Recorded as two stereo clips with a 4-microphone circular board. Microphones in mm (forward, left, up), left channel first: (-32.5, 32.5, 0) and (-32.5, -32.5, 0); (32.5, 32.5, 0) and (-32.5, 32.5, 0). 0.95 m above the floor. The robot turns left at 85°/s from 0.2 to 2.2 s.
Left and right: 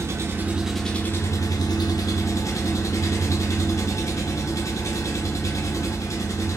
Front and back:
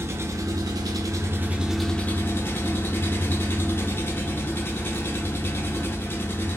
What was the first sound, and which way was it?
An engine running, 135° right.